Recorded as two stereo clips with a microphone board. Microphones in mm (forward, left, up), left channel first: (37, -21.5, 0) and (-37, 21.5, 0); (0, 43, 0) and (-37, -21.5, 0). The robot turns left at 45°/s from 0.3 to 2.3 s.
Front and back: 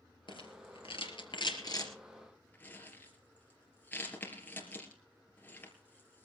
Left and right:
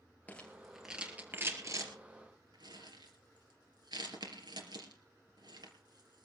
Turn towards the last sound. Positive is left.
turn(degrees=-100)